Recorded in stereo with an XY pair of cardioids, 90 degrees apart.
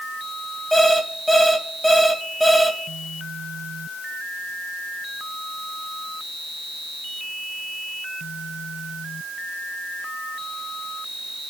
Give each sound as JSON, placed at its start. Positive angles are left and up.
{"t": 0.7, "sound": "an alarm clock", "azimuth_deg": 5, "distance_m": 4.0}